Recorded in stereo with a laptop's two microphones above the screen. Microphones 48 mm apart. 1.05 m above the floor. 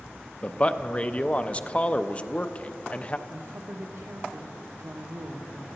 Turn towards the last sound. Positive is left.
turn(degrees=-60)  # may be behind; listen again after turning